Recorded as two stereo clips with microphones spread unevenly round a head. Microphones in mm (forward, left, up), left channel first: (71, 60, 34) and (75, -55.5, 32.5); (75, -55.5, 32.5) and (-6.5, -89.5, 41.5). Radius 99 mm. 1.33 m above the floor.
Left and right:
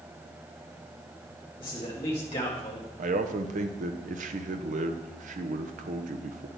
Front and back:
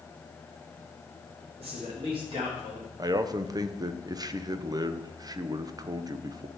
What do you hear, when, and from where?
1.6 s a man speaking: 160° left, 1.3 m; by 2.9 s 145° left, 2 m
3.0 s a man speaking: 110° right, 0.7 m